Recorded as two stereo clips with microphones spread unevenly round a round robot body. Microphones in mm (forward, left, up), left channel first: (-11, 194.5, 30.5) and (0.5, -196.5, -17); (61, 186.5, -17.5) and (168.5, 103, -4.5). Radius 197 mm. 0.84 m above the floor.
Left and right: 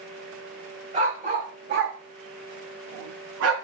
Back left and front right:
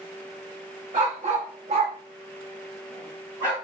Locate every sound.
0.9 s a dog barking: 10° right, 1.0 m; by 3.5 s 145° right, 0.8 m